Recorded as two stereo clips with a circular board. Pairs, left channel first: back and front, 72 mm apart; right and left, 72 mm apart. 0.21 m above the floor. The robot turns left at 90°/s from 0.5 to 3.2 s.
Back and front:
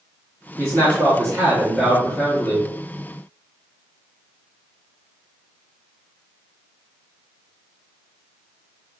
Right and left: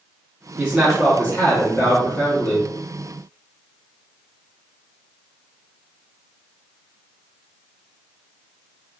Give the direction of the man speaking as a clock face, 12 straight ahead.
11 o'clock.